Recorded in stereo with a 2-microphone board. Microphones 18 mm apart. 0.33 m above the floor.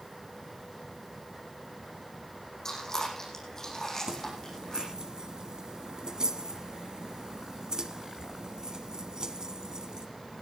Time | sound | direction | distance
2.6 | chewing | 25° left (ahead or behind) | 8.5 m
4.1 | keys jangling | 40° right (ahead or behind) | 1.7 m